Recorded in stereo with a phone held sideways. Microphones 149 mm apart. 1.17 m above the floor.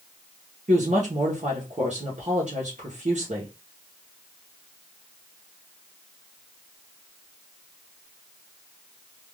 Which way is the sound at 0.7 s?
55° right (ahead or behind).